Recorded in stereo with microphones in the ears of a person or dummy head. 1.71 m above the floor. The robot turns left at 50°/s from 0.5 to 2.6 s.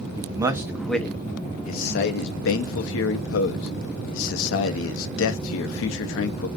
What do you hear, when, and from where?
0.2 s a man speaking: 15° right (ahead or behind), 0.5 m; by 6.5 s 75° left (ahead or behind), 0.5 m